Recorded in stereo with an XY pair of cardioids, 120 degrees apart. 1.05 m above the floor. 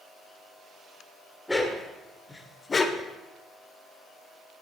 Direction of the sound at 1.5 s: 10° left.